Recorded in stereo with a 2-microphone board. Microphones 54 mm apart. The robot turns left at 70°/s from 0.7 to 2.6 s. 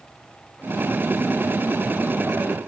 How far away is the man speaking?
No man speaking in this recording.